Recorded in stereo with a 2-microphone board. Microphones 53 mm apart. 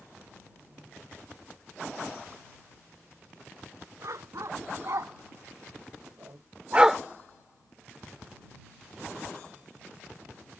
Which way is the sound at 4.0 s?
70° right (ahead or behind).